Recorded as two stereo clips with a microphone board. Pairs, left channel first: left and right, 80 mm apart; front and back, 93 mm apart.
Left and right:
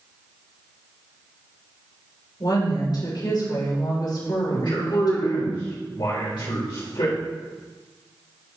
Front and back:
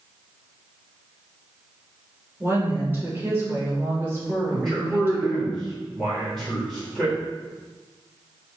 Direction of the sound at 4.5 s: 90° left.